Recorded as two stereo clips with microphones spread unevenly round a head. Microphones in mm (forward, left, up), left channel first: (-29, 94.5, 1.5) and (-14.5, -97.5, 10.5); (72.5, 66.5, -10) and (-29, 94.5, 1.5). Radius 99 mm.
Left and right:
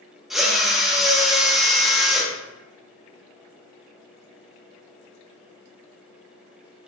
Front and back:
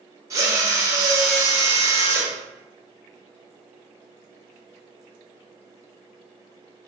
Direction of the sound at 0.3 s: 170° right.